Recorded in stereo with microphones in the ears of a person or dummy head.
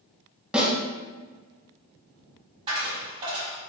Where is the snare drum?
5° right (ahead or behind), 1.5 m.